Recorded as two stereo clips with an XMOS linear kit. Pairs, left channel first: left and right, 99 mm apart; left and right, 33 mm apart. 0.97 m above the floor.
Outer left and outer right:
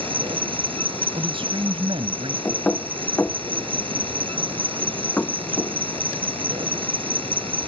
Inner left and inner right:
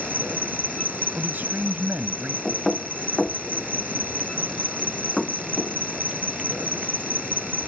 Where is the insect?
60° right (ahead or behind).